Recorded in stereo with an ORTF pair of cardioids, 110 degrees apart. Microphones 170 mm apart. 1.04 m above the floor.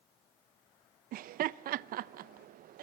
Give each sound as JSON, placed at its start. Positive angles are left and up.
{"t": 1.1, "sound": "laughter", "azimuth_deg": -60, "distance_m": 0.6}